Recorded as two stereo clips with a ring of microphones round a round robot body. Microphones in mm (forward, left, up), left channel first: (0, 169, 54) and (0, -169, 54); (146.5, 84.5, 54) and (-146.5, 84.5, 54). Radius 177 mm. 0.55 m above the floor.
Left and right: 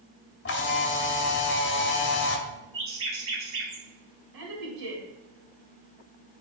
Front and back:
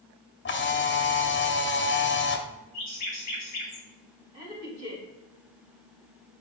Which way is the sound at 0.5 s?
40° left.